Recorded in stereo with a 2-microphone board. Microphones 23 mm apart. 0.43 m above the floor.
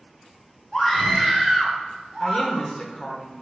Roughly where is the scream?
Centre.